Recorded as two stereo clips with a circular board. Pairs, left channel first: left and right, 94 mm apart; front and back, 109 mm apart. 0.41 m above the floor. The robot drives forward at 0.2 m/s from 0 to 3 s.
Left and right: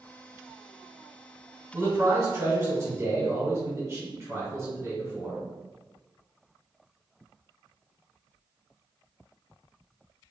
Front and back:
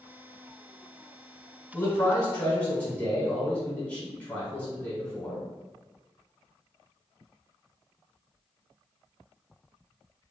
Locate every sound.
1.7 s a man speaking: 50° right, 1.6 m; by 5.4 s 65° right, 1.5 m